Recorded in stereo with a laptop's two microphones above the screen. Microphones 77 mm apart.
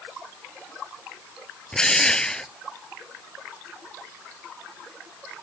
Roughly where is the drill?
Centre.